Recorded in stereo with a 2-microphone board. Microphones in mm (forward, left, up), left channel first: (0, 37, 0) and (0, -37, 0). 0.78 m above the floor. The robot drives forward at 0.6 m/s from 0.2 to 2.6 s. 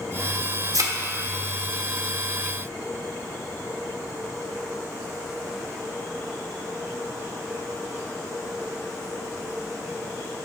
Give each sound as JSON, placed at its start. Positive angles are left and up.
{"t": 0.7, "sound": "a thud", "side_deg": -55, "distance_m": 0.8}